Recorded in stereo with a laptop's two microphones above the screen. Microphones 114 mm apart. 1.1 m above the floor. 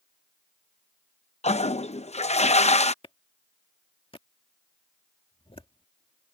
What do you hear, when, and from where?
1.4 s a toilet flushing: 75° left (ahead or behind)
3.0 s a clap: 55° left (ahead or behind)